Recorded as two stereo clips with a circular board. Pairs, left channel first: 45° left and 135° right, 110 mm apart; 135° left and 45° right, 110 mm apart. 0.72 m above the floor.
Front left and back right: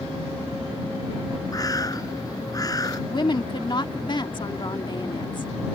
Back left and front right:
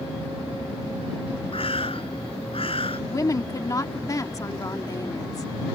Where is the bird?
100° left.